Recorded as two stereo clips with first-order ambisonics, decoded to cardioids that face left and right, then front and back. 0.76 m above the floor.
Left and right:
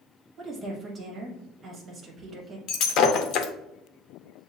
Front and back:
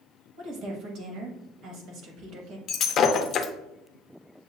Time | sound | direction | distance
0.4 | a woman speaking | 155° right | 1.2 m
2.7 | breaking glass | 55° left | 0.6 m